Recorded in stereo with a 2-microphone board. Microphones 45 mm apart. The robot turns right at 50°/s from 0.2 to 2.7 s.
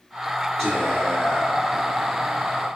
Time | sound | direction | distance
0.6 | whispering | 10° left | 1.6 m